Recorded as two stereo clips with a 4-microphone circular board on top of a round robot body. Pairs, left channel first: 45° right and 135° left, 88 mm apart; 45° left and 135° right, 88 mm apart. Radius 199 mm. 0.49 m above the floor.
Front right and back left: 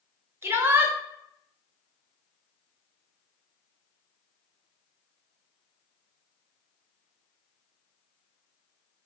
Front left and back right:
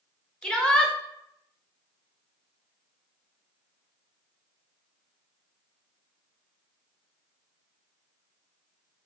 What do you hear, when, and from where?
0.4 s a shout: 115° left, 1.1 m